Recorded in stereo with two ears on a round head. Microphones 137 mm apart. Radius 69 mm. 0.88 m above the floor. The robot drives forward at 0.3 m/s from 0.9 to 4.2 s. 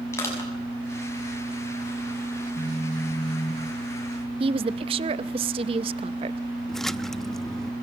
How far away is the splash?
About 0.5 m.